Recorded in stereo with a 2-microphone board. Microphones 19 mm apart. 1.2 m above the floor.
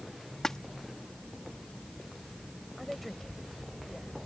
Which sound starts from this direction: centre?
A woman speaking, at 2.8 s.